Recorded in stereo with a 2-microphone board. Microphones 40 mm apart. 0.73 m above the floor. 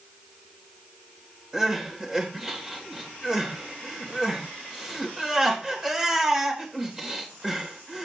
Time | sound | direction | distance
1.5 | crying | 10° right (ahead or behind) | 3 m